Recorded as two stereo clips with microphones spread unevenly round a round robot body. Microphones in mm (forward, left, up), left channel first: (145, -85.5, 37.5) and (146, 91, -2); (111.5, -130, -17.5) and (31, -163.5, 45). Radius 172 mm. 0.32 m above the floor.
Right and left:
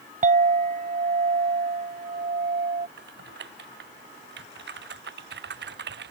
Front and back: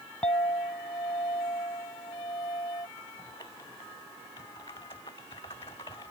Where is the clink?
70° left.